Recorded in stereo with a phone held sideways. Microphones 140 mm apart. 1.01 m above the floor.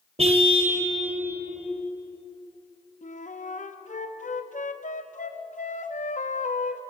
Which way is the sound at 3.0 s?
65° left (ahead or behind).